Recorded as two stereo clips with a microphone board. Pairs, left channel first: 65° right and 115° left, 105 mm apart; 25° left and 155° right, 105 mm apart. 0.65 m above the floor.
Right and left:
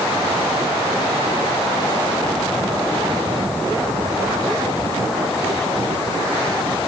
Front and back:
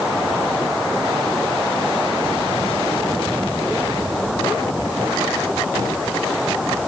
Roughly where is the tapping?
No tapping in this recording.